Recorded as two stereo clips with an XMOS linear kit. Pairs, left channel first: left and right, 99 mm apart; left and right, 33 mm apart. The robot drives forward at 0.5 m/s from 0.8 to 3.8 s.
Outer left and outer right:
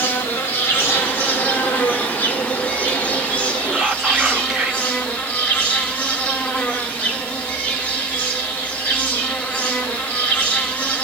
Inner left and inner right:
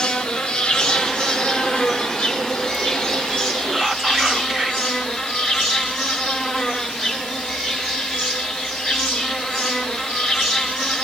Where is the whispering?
5° right (ahead or behind), 0.9 m.